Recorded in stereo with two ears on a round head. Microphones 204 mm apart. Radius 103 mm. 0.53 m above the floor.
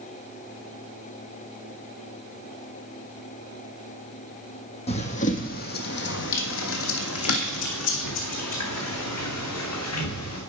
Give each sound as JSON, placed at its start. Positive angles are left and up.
{"t": 4.9, "sound": "running footsteps", "side_deg": 25, "distance_m": 1.6}